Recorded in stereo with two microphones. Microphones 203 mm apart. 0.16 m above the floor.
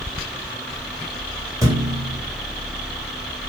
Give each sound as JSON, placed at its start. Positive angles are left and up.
{"t": 1.6, "sound": "a thud", "side_deg": -15, "distance_m": 3.0}